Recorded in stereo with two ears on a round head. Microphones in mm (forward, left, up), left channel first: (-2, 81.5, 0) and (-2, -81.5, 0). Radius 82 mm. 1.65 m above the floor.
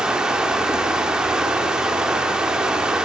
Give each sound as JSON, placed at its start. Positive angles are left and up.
{"t": 0.0, "sound": "running water", "side_deg": -5, "distance_m": 1.9}